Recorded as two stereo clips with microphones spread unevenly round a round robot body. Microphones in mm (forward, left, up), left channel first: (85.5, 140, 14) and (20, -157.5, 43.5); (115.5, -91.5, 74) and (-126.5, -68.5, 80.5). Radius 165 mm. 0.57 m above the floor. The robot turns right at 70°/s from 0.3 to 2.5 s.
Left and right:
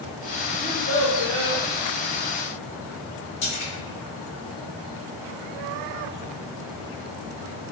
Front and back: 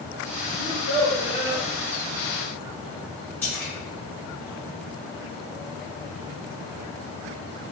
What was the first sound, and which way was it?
A child speaking, 5° left.